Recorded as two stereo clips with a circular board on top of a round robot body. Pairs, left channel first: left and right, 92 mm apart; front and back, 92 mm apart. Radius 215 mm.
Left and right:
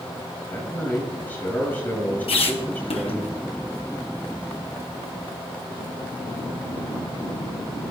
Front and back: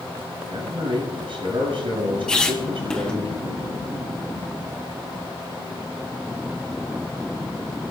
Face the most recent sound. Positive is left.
turn(degrees=80)